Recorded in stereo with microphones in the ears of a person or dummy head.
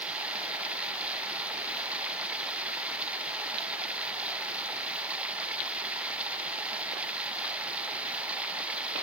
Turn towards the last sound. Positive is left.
turn(degrees=-10)  # may be behind; listen again after turning